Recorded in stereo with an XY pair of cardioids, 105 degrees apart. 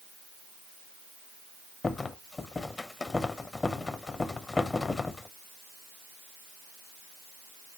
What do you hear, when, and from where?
1.8 s a rattle: 25° left, 0.6 m